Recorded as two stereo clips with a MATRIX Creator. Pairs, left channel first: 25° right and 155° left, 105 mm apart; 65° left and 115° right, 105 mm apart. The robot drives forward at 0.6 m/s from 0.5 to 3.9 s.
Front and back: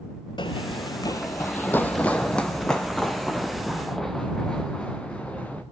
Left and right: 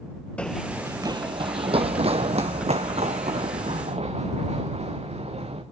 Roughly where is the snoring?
No snoring in this recording.